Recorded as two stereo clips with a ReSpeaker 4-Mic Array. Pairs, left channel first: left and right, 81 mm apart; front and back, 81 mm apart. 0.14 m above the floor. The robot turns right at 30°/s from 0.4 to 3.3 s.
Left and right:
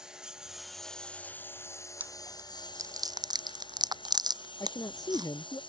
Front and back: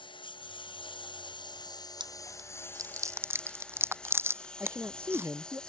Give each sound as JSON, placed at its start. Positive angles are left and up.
{"t": 0.0, "sound": "a lawn mower", "azimuth_deg": -10}
{"t": 2.0, "sound": "chewing", "azimuth_deg": -160}
{"t": 4.6, "sound": "a man speaking", "azimuth_deg": 120}